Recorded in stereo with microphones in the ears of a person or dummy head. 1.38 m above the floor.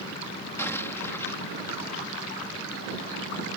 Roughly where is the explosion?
Centre.